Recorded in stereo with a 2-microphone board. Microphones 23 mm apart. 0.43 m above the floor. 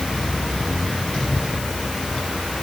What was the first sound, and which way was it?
Only background noise.